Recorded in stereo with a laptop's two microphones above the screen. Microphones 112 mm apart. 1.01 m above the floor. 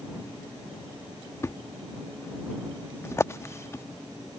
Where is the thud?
25° left (ahead or behind).